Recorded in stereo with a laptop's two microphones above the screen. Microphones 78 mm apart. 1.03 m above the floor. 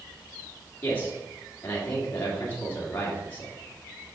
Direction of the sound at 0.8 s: 30° left (ahead or behind).